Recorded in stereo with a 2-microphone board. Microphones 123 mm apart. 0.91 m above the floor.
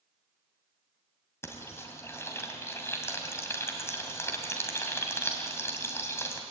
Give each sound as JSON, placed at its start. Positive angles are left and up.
{"t": 1.4, "sound": "frying", "side_deg": 20, "distance_m": 2.5}